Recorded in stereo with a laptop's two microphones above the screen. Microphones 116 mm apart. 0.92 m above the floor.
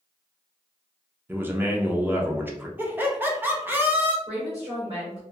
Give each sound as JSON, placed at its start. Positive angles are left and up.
{"t": 1.3, "sound": "a man speaking", "side_deg": -15, "distance_m": 0.6}
{"t": 2.8, "sound": "laughter", "side_deg": -15, "distance_m": 0.5}
{"t": 4.3, "sound": "a woman speaking", "side_deg": -50, "distance_m": 1.6}